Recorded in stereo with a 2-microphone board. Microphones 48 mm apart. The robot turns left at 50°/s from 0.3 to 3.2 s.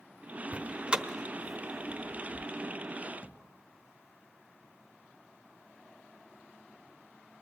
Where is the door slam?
30° right (ahead or behind), 0.7 m; by 2.5 s 20° left (ahead or behind), 0.7 m.